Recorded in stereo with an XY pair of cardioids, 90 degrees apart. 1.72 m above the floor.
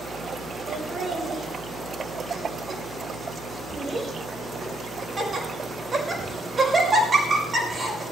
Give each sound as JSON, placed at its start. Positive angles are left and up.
{"t": 0.7, "sound": "laughter", "azimuth_deg": -40, "distance_m": 6.0}